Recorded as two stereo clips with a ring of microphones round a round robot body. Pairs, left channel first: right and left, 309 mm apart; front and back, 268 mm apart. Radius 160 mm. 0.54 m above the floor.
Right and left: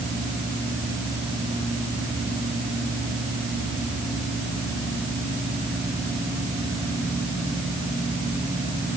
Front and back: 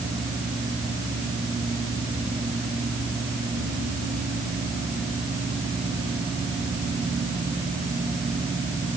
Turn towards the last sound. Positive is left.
No sound to turn to.